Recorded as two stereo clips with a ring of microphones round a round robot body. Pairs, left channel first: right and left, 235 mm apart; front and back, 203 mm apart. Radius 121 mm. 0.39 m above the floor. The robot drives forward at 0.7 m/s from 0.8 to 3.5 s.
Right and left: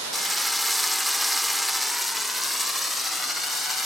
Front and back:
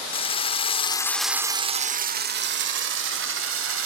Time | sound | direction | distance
0.1 | a drill | straight ahead | 0.7 m